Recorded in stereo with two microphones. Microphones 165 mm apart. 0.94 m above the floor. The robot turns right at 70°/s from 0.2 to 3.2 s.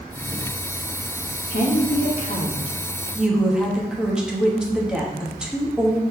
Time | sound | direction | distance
1.5 | a woman speaking | 65° left | 1.2 m